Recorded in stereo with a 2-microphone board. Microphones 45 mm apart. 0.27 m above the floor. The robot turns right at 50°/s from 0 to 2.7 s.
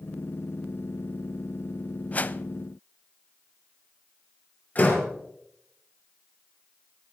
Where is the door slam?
40° left (ahead or behind), 4 m.